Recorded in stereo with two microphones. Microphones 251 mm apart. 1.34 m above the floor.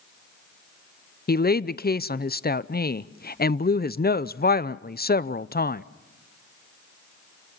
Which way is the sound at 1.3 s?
40° left (ahead or behind).